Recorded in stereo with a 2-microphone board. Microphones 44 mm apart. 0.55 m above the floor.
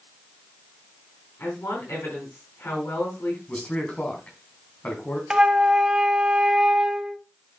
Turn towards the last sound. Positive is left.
turn(degrees=-15)  # may be behind; listen again after turning